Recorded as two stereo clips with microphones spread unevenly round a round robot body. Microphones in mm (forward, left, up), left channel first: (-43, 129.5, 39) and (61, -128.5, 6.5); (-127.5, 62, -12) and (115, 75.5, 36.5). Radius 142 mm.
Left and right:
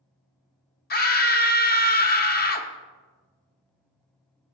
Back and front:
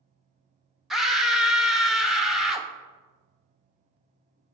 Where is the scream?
115° left, 0.8 m.